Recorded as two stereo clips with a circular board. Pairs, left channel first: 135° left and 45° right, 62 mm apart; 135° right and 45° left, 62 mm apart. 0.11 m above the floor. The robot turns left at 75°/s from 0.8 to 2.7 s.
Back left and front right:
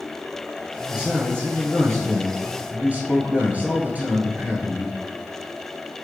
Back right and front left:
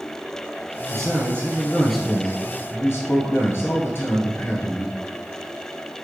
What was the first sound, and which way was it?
A man speaking, 35° left.